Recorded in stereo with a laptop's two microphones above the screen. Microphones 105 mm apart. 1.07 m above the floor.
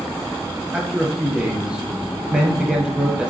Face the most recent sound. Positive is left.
turn(degrees=-10)  # may be behind; listen again after turning